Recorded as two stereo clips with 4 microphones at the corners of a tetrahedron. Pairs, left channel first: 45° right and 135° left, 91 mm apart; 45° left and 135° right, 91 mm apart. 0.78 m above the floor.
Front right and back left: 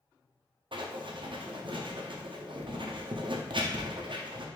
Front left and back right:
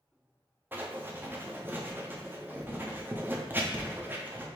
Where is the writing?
155° left, 0.5 m.